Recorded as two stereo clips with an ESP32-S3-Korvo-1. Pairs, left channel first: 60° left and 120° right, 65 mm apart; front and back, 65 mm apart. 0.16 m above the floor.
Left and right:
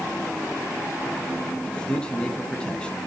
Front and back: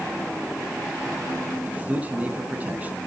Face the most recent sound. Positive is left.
turn(degrees=125)